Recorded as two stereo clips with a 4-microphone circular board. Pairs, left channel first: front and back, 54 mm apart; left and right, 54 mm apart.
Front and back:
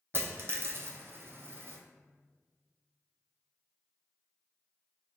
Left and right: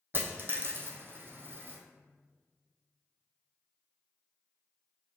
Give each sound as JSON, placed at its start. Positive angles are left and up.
{"t": 0.1, "sound": "a dropped coin", "azimuth_deg": -135, "distance_m": 0.5}